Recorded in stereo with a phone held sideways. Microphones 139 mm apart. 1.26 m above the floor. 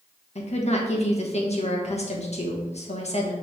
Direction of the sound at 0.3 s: 45° left (ahead or behind).